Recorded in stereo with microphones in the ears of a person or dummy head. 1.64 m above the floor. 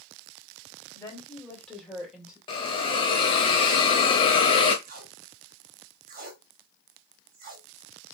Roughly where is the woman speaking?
Centre.